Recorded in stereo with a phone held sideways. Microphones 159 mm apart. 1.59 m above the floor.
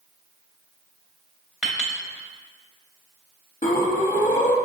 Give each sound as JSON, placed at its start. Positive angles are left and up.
{"t": 1.6, "sound": "a clink", "side_deg": -5, "distance_m": 1.0}
{"t": 3.6, "sound": "breathing", "side_deg": 55, "distance_m": 0.6}